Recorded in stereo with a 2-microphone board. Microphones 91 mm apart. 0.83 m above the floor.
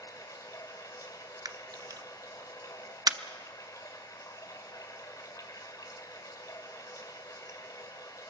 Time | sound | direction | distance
0.0 | running water | 40° left (ahead or behind) | 1.9 m
1.4 | a camera shutter | 45° right (ahead or behind) | 0.7 m